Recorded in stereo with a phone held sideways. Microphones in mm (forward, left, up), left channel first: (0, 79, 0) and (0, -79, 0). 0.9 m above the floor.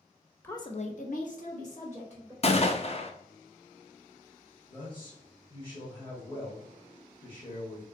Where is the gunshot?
45° left (ahead or behind), 0.5 m.